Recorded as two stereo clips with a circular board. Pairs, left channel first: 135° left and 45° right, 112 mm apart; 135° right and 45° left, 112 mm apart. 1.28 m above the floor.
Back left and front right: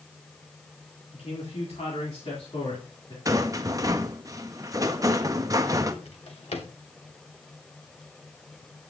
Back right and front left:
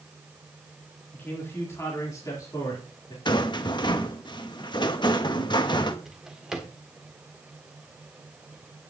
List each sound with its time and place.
1.1 s a man speaking: 150° left, 3.5 m; by 3.1 s 175° left, 3.5 m
3.2 s a rattle: 95° right, 0.8 m
6.0 s a drawer: 130° left, 1.7 m